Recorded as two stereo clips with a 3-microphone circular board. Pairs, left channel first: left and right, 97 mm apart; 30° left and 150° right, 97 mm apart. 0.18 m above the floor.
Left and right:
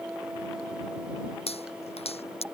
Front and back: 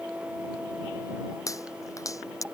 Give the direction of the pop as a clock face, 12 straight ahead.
9 o'clock.